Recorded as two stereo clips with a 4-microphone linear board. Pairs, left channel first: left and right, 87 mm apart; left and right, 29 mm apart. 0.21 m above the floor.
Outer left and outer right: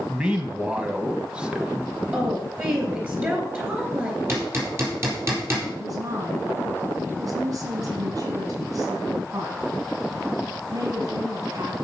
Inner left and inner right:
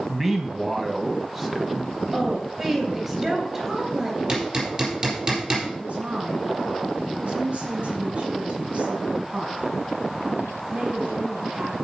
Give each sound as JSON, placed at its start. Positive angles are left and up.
{"t": 0.1, "sound": "a man speaking", "side_deg": -10, "distance_m": 1.2}
{"t": 2.1, "sound": "a woman speaking", "side_deg": -15, "distance_m": 3.5}
{"t": 4.3, "sound": "hammering", "side_deg": -30, "distance_m": 4.0}
{"t": 5.8, "sound": "a woman speaking", "side_deg": -50, "distance_m": 2.0}